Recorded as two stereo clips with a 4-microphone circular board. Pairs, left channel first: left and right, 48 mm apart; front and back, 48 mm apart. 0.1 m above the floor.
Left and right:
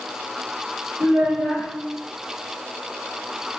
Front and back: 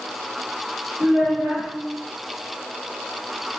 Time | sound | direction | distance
1.0 | a child speaking | 135° right | 1.4 m